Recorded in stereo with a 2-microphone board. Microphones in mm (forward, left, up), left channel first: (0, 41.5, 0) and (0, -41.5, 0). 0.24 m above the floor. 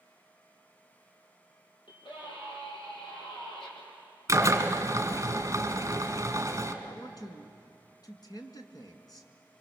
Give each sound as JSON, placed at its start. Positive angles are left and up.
{"t": 1.9, "sound": "a scream", "side_deg": 75, "distance_m": 8.0}
{"t": 4.3, "sound": "a drill", "side_deg": -40, "distance_m": 1.9}
{"t": 6.8, "sound": "a man speaking", "side_deg": 50, "distance_m": 2.0}